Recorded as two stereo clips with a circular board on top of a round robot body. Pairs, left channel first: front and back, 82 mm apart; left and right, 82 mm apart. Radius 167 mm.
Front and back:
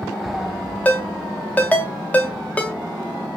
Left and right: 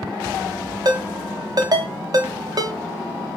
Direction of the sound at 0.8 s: 70° right.